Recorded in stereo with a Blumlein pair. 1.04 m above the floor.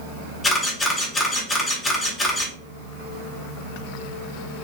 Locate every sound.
0.4 s a camera shutter: 10° left, 1.8 m